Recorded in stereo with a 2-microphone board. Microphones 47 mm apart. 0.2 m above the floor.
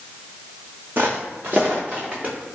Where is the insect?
No insect in this recording.